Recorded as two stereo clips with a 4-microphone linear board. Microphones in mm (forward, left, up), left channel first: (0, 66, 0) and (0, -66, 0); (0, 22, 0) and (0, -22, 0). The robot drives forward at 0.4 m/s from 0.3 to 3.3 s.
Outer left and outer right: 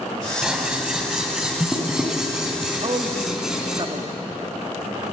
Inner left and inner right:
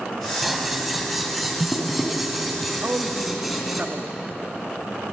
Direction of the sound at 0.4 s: 5° right (ahead or behind).